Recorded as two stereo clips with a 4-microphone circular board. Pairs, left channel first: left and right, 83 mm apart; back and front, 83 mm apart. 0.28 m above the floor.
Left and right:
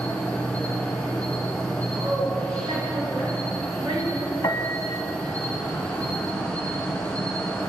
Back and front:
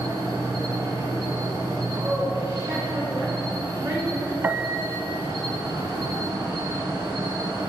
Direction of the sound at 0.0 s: 15° left.